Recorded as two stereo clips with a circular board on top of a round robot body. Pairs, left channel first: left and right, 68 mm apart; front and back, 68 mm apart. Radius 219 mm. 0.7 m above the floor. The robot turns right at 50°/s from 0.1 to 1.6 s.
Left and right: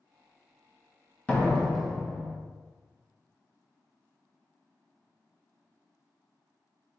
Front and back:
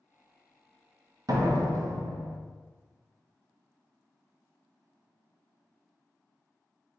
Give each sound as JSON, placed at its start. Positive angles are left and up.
{"t": 1.3, "sound": "a door slam", "azimuth_deg": 160, "distance_m": 1.2}